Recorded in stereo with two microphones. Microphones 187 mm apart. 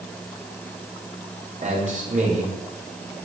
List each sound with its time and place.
1.6 s a man speaking: 45° right (ahead or behind), 5 m